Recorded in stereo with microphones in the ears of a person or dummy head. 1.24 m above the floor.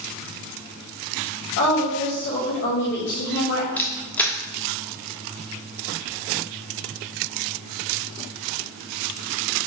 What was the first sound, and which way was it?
A woman speaking, 65° left (ahead or behind).